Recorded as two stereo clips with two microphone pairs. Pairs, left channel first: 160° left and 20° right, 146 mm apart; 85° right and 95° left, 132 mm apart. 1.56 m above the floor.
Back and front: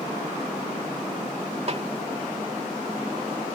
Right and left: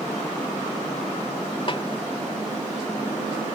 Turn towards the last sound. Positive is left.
turn(degrees=-50)